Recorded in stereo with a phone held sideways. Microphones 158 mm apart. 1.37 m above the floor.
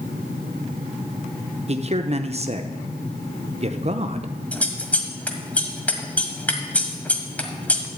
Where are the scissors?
10° left (ahead or behind), 1.4 m.